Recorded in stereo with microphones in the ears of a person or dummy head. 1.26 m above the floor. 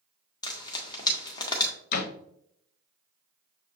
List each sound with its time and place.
0.4 s frying: 25° left (ahead or behind), 0.7 m
1.9 s a door slam: 55° left (ahead or behind), 0.6 m